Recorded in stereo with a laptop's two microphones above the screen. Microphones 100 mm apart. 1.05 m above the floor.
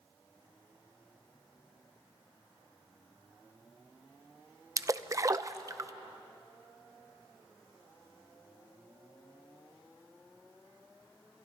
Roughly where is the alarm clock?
I don't hear an alarm clock.